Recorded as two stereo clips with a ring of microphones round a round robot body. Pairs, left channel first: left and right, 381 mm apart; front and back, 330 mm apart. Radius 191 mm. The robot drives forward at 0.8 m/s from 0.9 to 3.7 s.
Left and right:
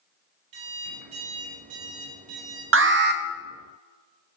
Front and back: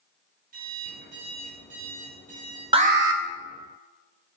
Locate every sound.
0.5 s an alarm clock: 110° right, 4.5 m; by 2.6 s 125° right, 5 m
2.7 s an alarm: 115° right, 0.6 m; by 3.2 s 150° right, 0.8 m